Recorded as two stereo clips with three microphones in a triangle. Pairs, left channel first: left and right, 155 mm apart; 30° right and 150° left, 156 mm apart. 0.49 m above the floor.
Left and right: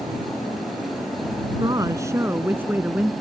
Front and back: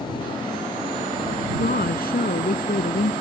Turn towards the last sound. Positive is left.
turn(degrees=-5)